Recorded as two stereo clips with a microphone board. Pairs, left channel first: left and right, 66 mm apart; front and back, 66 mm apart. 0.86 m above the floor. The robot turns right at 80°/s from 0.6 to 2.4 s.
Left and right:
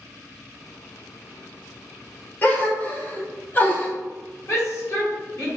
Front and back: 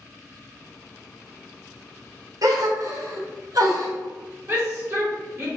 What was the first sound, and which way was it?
A gasp, 155° left.